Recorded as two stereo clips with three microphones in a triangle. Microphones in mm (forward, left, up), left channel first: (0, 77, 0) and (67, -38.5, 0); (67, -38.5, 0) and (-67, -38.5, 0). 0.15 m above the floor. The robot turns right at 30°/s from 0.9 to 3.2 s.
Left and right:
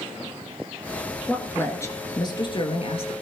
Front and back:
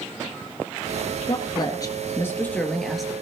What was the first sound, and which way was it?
A woman speaking, 40° left.